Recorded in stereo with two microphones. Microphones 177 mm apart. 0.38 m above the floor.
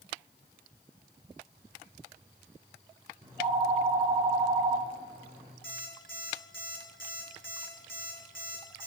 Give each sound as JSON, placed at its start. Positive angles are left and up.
{"t": 3.2, "sound": "a phone ringing", "side_deg": -35, "distance_m": 4.5}
{"t": 5.6, "sound": "an alarm clock", "side_deg": -80, "distance_m": 3.0}